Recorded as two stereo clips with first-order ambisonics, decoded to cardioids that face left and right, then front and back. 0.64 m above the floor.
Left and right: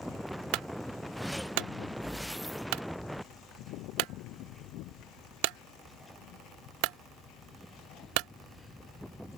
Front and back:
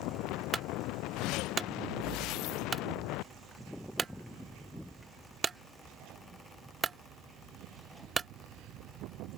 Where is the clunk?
110° right.